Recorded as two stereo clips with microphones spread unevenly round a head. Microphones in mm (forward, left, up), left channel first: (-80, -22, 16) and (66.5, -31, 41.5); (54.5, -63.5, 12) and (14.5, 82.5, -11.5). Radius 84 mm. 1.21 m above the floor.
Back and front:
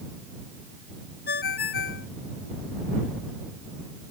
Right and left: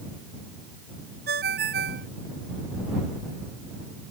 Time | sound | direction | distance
1.3 | a ringtone | 145° left | ?